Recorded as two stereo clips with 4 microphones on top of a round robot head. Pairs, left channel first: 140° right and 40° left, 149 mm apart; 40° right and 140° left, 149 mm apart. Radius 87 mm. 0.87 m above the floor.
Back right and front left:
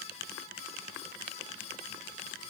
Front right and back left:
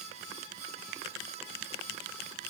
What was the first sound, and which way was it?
Only background noise.